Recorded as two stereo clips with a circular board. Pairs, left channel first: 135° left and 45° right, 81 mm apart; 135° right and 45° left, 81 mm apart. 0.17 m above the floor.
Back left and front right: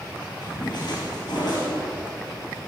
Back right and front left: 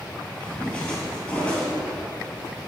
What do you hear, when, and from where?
0.4 s a splash: 150° left, 3 m